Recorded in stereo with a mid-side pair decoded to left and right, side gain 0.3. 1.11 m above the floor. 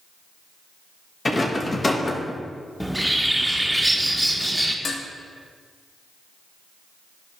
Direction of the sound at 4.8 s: 65° left.